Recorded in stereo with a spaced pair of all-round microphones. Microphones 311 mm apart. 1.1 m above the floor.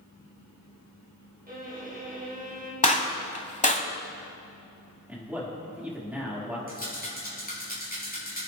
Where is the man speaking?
5° right (ahead or behind), 3.5 m.